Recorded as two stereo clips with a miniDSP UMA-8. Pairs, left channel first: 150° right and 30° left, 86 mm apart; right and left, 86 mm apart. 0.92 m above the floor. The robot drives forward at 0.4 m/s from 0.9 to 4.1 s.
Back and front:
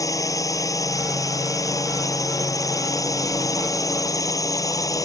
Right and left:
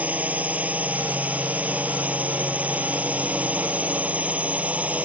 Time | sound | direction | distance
0.0 | a drone | 160° left | ?